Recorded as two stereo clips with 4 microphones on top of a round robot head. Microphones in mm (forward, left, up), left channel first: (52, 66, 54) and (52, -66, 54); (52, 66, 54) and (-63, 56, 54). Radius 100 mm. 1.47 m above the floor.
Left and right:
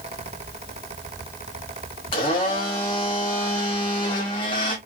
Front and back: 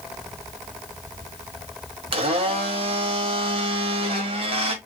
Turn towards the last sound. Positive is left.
turn(degrees=155)